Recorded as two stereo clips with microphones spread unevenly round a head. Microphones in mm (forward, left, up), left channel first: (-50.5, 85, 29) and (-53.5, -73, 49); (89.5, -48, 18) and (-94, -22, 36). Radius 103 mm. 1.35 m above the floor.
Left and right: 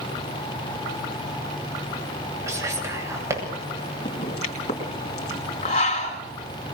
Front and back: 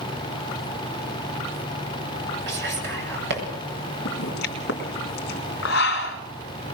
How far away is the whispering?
About 9.5 m.